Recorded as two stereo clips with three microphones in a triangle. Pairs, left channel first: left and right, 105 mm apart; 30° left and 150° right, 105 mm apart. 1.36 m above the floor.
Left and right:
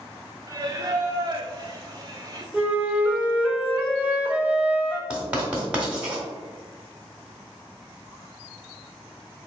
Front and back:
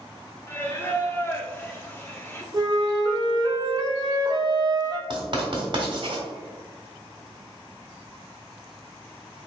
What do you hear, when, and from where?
0.5 s singing: 40° right, 0.6 m
2.5 s a flute: 160° right, 0.7 m
5.1 s writing: 165° right, 1.3 m